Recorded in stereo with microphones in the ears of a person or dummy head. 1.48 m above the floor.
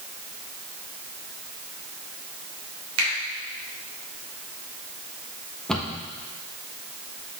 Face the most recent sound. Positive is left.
turn(degrees=5)  # may be behind; listen again after turning